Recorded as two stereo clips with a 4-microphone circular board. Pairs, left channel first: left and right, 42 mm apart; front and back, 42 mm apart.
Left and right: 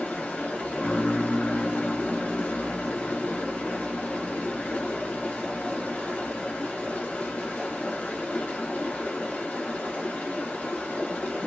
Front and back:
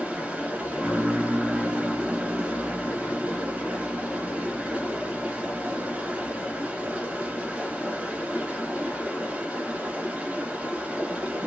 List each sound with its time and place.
0.0 s running water: 125° left, 1.9 m